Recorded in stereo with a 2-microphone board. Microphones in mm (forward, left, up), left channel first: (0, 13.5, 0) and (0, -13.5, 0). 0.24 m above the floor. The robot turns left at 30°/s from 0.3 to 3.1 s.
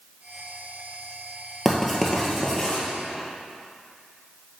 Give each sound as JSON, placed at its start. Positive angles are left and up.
{"t": 1.6, "sound": "writing", "side_deg": -10, "distance_m": 1.7}